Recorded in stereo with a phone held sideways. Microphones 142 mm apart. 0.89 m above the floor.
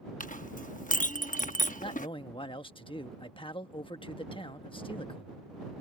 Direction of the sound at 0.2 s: 65° left (ahead or behind).